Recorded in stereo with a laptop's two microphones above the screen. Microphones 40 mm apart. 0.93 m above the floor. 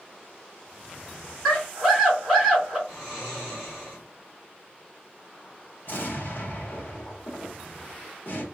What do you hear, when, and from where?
1.4 s a scream: 5° left (ahead or behind), 2 m
2.9 s snoring: 10° right (ahead or behind), 1.6 m
5.8 s an explosion: 50° left (ahead or behind), 1.5 m